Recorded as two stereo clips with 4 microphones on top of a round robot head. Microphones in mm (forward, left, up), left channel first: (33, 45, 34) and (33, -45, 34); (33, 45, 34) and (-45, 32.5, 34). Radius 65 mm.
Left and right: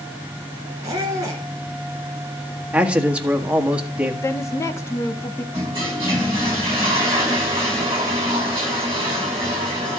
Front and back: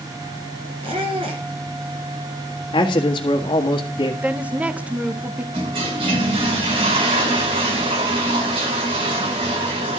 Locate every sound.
0.8 s a squeak: 155° right, 1.6 m
2.7 s a man speaking: 15° right, 1.7 m
4.2 s a woman speaking: 125° left, 1.0 m
5.5 s a toilet flushing: 155° right, 4.5 m